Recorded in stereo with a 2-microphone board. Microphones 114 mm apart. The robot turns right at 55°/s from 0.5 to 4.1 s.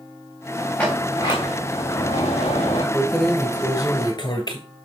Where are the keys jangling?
5° right, 1.5 m; by 4.6 s 55° left, 1.5 m.